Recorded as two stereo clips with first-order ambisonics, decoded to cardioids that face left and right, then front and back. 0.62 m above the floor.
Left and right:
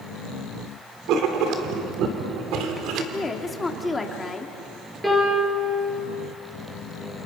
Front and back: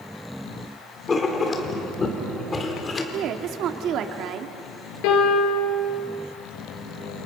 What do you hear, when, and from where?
1.1 s writing: 65° right, 2 m
3.1 s a woman speaking: 165° left, 1.4 m
5.0 s a piano: 5° right, 4.5 m